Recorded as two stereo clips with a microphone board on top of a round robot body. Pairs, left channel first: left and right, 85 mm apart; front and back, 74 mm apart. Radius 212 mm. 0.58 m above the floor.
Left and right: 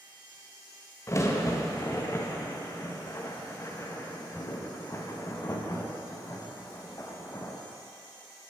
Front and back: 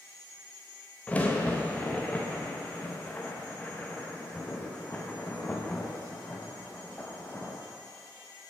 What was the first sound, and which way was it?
A crack, 60° left.